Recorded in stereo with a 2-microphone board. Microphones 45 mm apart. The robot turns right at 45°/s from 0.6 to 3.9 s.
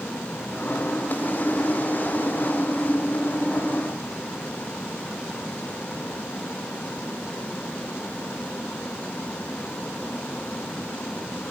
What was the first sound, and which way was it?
Only background noise.